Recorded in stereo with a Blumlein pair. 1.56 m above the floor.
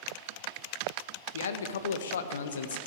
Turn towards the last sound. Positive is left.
turn(degrees=65)